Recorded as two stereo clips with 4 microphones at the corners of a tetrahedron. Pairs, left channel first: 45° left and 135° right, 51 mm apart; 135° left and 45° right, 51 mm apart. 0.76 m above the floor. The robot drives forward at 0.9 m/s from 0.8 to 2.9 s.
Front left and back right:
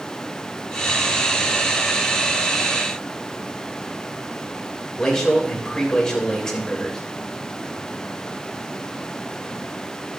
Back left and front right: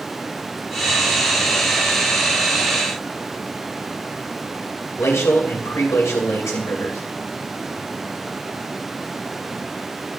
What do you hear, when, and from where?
5.0 s a man speaking: 125° left, 3 m